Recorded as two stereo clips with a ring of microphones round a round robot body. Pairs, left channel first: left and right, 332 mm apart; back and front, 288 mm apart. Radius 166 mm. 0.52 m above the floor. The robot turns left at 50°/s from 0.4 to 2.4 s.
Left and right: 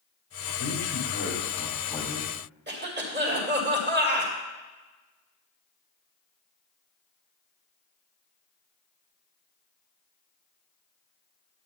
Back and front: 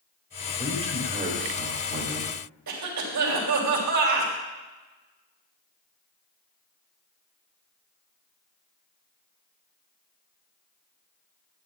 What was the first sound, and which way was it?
A man speaking, 75° left.